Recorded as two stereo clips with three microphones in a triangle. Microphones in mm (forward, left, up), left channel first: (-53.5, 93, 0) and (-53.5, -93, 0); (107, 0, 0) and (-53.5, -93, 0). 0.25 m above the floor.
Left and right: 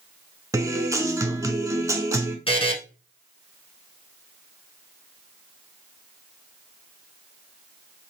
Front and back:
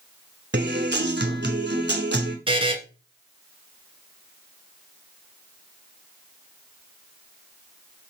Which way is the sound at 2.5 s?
150° left.